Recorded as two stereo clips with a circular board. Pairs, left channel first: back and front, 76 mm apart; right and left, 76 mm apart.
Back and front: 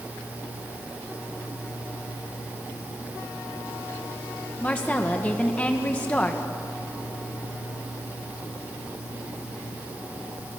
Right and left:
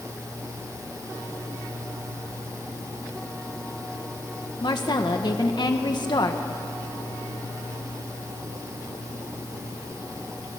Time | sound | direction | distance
4.6 | a woman speaking | 110° right | 1.7 m